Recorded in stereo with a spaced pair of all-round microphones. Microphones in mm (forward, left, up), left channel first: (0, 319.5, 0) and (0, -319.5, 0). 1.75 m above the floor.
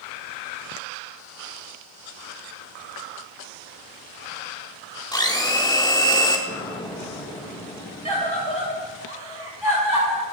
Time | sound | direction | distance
5.1 | a blender | 5° left (ahead or behind) | 1.8 m
6.5 | an explosion | 5° left (ahead or behind) | 2.0 m
8.1 | a scream | 45° right (ahead or behind) | 8 m